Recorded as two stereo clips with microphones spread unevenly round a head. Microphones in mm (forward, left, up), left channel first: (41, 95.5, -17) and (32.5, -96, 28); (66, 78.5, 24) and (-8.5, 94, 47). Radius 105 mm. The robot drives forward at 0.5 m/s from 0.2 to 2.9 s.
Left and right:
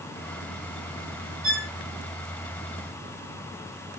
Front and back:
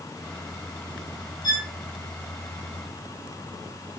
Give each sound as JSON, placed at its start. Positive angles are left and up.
{"t": 1.4, "sound": "a violin", "azimuth_deg": -50, "distance_m": 5.5}